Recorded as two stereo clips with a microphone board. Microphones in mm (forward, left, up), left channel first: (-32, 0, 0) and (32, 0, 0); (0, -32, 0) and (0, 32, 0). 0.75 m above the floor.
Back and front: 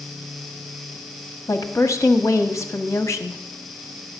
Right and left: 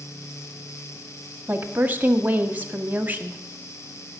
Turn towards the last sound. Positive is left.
turn(degrees=150)